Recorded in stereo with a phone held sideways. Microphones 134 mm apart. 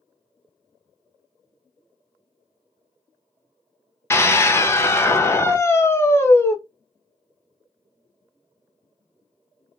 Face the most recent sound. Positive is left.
turn(degrees=20)  # may be behind; listen again after turning